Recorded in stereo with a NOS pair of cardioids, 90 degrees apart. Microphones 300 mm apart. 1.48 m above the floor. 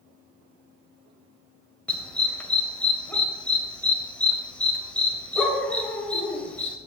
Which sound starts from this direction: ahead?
A dog barking, at 1.9 s.